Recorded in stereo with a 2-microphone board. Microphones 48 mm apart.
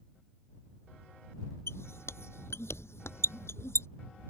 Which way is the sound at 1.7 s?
75° left (ahead or behind).